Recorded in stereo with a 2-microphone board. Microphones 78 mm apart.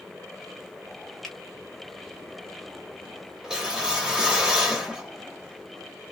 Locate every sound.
1.2 s a finger snap: 5° left (ahead or behind), 1.4 m
3.4 s a whoosh: 10° right (ahead or behind), 0.9 m